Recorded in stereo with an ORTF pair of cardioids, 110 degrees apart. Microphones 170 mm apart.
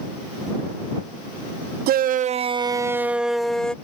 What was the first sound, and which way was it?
A shout, 70° right.